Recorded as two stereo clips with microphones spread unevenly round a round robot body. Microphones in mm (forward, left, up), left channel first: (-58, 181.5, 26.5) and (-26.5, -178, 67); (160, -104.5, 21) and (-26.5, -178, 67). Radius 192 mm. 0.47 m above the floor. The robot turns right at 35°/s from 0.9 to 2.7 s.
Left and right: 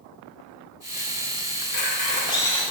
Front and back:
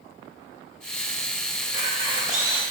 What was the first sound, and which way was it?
A camera shutter, 145° left.